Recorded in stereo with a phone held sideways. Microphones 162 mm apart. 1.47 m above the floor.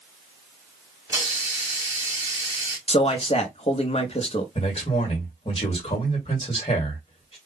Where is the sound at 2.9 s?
40° left (ahead or behind), 0.9 m.